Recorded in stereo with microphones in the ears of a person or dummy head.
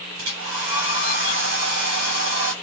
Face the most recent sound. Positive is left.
turn(degrees=-65)  # may be behind; listen again after turning